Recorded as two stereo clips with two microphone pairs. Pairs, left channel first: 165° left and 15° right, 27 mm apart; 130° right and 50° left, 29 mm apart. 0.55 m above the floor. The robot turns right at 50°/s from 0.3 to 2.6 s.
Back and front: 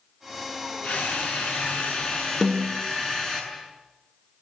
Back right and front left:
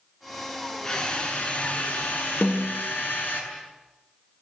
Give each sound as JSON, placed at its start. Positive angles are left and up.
{"t": 0.8, "sound": "a drill", "azimuth_deg": 155, "distance_m": 7.5}
{"t": 2.4, "sound": "a snare drum", "azimuth_deg": -110, "distance_m": 3.5}